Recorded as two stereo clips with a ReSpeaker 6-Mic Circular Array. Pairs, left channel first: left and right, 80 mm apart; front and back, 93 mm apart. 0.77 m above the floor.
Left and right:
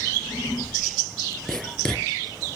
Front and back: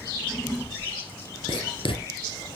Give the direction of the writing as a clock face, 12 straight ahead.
12 o'clock.